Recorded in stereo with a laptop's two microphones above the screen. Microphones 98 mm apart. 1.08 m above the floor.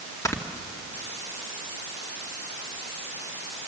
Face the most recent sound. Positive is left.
turn(degrees=30)  # may be behind; listen again after turning